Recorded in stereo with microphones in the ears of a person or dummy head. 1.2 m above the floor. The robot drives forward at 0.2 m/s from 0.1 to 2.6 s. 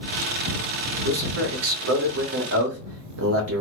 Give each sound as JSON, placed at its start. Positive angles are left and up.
{"t": 1.1, "sound": "a man speaking", "side_deg": -85, "distance_m": 0.9}